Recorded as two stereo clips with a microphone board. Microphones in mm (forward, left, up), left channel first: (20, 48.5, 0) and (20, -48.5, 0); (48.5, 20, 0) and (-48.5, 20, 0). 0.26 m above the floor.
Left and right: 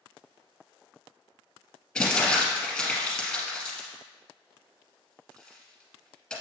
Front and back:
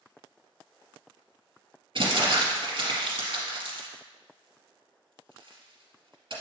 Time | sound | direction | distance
1.9 | crumpling | 165° left | 2.5 m